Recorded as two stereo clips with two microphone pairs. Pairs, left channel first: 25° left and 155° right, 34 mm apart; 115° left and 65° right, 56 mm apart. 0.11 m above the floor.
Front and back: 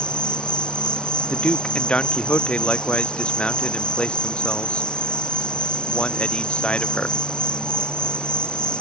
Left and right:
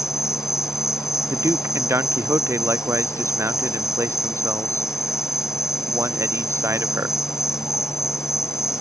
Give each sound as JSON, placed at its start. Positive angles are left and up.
{"t": 0.0, "sound": "an insect", "azimuth_deg": 85}
{"t": 1.3, "sound": "a man speaking", "azimuth_deg": -30}